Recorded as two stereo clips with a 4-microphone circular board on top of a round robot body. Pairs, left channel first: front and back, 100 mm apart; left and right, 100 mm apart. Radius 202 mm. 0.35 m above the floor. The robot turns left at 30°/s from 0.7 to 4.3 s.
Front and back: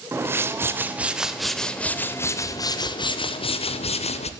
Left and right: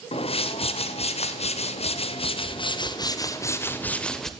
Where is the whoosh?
110° left, 0.7 m; by 4.3 s 5° left, 0.7 m.